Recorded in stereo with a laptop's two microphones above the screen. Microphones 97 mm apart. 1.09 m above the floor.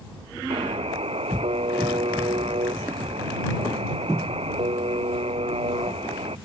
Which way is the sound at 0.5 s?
85° right.